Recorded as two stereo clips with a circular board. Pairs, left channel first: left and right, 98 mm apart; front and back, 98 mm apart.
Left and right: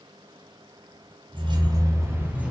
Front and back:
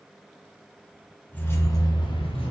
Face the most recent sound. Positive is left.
turn(degrees=-15)